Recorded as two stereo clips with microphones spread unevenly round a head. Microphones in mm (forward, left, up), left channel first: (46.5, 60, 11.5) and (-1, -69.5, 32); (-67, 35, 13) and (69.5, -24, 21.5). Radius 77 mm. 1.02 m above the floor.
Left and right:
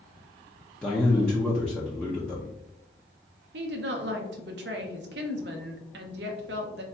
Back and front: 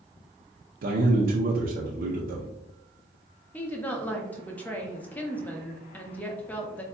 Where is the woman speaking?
125° right, 0.6 m.